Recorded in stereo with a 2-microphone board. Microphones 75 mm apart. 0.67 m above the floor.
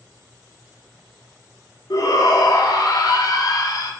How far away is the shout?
About 1.1 m.